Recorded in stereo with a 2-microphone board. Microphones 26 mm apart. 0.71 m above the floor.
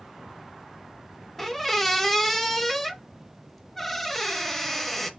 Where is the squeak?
5° left (ahead or behind), 0.6 m.